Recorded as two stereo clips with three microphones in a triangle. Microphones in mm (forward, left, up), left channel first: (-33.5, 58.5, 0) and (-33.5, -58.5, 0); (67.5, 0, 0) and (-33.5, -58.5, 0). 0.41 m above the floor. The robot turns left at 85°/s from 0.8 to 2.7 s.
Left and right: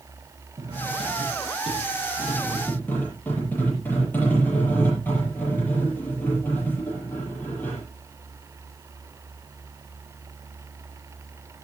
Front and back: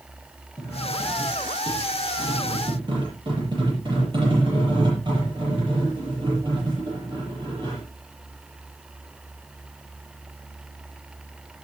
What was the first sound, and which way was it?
Cutlery clinking, 35° right.